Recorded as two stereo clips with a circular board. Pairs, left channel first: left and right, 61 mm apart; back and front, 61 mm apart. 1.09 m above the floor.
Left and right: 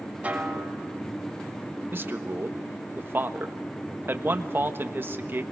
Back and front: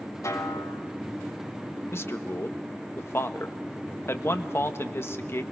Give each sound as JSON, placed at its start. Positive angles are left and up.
{"t": 0.2, "sound": "a snare drum", "azimuth_deg": -155, "distance_m": 3.5}
{"t": 1.9, "sound": "a man speaking", "azimuth_deg": -140, "distance_m": 1.2}